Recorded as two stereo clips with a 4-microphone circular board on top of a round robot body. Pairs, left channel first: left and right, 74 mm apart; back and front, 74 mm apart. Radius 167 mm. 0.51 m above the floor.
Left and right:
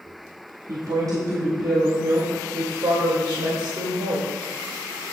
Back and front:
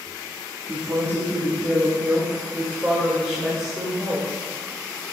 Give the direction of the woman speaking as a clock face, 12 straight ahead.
2 o'clock.